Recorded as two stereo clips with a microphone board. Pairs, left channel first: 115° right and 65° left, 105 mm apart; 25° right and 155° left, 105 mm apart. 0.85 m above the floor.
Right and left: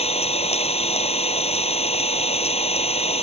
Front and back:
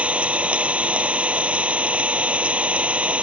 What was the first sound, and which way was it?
An engine running, 125° right.